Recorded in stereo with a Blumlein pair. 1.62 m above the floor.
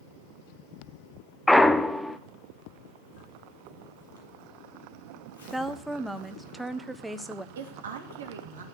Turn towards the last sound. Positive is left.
turn(degrees=-65)